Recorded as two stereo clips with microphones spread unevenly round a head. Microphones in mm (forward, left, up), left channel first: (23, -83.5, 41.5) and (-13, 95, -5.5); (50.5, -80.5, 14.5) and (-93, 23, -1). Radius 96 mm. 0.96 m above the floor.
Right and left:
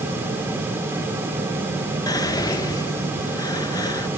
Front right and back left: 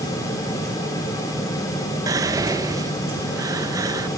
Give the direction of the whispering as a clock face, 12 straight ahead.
5 o'clock.